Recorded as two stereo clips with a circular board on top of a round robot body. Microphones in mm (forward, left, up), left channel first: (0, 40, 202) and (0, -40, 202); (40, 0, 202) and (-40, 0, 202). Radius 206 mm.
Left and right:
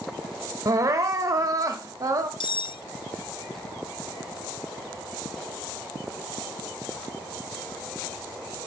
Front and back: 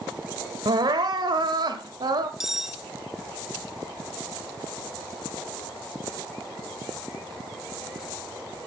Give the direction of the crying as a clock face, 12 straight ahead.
5 o'clock.